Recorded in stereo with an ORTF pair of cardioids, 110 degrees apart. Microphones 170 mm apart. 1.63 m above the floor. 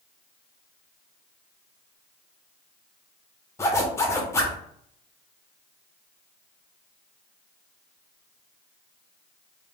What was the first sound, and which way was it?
A zipper, 15° left.